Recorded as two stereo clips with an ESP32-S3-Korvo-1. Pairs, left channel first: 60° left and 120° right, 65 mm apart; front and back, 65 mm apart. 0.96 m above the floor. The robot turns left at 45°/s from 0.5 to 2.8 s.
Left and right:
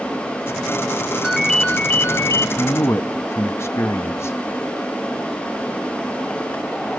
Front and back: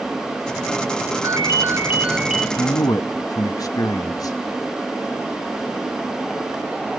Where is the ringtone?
150° left, 0.5 m; by 2.5 s 95° left, 0.5 m.